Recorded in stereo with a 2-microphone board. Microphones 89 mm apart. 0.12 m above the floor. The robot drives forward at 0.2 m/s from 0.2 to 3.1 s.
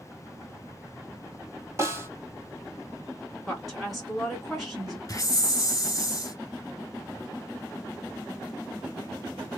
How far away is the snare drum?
About 1.1 m.